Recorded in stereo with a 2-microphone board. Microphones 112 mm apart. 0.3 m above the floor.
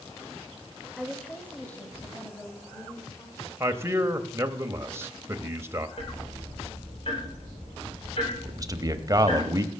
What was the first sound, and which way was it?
A woman speaking, 5° left (ahead or behind).